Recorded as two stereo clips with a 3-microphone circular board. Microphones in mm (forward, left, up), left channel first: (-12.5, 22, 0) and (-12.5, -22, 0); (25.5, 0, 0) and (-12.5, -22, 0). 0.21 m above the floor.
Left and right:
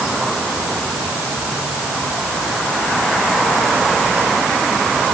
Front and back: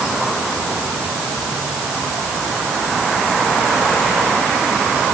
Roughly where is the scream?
No scream in this recording.